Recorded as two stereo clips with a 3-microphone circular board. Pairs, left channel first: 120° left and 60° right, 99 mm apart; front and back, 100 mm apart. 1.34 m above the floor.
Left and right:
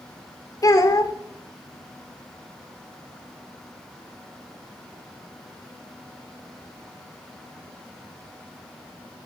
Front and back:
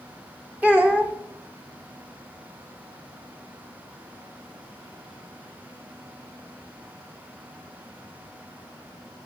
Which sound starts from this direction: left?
A child speaking, at 0.6 s.